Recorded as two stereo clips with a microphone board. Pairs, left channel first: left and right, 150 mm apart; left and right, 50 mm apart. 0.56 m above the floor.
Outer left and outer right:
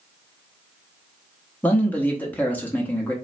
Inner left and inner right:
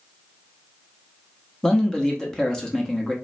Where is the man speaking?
10° left (ahead or behind), 0.8 m.